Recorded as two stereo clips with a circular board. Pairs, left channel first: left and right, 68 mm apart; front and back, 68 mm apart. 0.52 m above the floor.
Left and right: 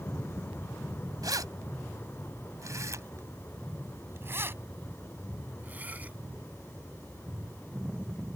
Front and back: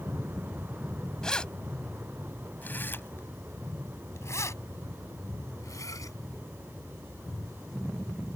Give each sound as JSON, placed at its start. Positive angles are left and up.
{"t": 1.2, "sound": "keys jangling", "azimuth_deg": -80}